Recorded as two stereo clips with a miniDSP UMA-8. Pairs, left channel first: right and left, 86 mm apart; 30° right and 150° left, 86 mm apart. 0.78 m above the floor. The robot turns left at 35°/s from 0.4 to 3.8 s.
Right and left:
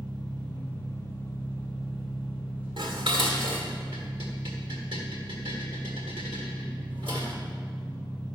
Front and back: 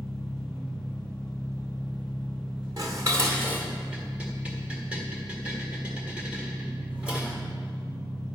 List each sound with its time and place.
0.0 s an engine running: 120° right, 4 m; by 8.4 s 120° left, 4 m
2.8 s dishes clattering: 110° left, 1.6 m; by 7.4 s 75° left, 1.6 m